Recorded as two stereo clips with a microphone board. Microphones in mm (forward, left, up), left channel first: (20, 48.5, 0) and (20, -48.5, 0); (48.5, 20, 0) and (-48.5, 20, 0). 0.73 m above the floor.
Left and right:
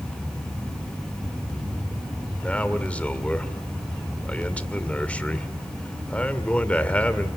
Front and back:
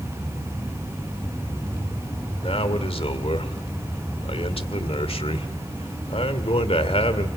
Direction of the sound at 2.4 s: 15° left.